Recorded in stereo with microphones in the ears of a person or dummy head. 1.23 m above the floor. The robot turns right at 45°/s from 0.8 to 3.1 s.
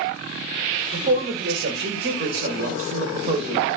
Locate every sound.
0.9 s a man speaking: 140° right, 0.7 m; by 3.7 s 45° right, 0.7 m